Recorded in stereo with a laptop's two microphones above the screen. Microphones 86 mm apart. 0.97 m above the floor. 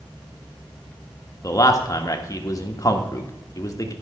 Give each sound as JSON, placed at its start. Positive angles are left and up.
{"t": 1.4, "sound": "a man speaking", "side_deg": 35, "distance_m": 1.5}